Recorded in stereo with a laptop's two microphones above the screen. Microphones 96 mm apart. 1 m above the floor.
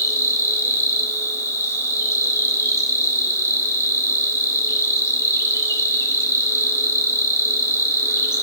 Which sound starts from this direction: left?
An insect, at 0.0 s.